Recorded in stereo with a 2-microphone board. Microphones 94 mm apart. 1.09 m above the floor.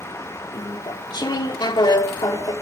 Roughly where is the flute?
No flute in this recording.